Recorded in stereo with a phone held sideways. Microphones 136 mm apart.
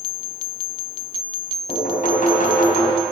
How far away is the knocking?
About 4 m.